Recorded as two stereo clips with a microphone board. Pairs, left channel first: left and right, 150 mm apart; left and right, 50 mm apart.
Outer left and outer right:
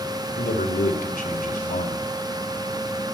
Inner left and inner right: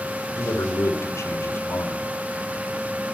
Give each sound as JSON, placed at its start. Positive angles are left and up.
{"t": 0.4, "sound": "a man speaking", "side_deg": 70, "distance_m": 3.0}